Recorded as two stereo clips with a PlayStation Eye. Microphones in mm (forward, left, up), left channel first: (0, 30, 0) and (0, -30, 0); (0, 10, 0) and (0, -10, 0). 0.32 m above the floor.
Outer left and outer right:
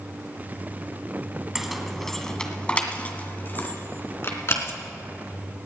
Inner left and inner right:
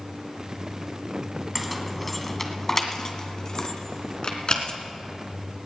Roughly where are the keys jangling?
Centre.